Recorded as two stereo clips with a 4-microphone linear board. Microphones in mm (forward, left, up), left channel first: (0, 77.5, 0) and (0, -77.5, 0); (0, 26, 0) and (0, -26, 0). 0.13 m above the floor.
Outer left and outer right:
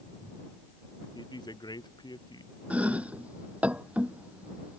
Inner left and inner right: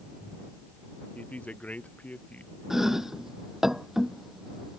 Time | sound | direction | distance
1.1 | a woman speaking | 30° left (ahead or behind) | ?
2.7 | chopping | 10° right (ahead or behind) | ?